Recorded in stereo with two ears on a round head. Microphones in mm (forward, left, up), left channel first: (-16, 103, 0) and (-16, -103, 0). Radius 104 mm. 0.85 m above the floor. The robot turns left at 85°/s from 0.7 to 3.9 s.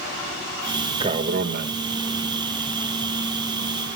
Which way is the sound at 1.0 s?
35° right.